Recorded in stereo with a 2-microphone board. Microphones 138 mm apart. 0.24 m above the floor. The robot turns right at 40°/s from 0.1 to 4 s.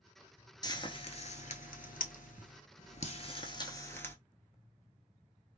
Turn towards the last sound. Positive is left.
turn(degrees=15)  # may be behind; listen again after turning